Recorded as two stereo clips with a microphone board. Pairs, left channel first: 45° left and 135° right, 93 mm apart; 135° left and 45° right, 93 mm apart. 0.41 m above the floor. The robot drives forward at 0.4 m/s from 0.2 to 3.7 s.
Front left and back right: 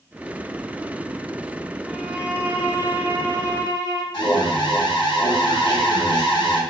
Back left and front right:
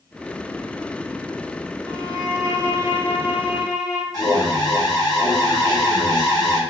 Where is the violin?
55° right, 1.0 m; by 4.0 s 120° right, 1.0 m.